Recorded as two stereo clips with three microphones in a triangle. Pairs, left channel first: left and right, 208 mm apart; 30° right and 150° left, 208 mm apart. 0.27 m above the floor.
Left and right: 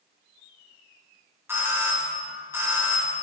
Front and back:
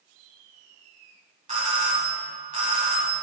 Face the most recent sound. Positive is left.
turn(degrees=-165)